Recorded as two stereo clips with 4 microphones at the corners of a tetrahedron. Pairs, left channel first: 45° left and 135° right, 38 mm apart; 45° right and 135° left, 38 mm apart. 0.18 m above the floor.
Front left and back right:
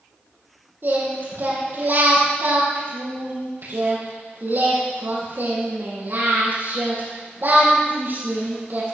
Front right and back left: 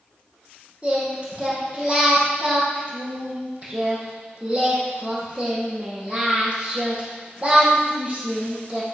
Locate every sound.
0.8 s singing: 165° right, 6.5 m